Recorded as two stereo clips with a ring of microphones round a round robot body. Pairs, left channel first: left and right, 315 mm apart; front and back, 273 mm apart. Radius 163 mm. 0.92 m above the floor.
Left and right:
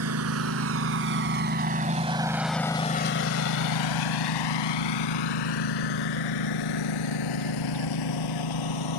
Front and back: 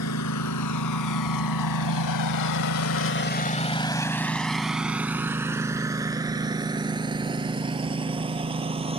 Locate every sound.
0.0 s a lawn mower: 45° right; by 9.0 s 110° left